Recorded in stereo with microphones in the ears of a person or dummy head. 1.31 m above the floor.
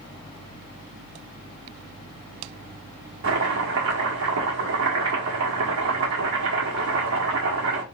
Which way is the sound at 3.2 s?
60° right (ahead or behind).